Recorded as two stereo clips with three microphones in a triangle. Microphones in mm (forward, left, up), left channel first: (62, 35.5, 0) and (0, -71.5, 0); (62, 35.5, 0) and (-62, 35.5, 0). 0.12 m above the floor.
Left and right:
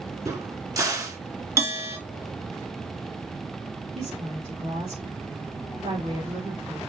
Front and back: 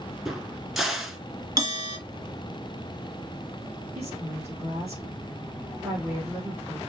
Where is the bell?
165° right, 1.8 m.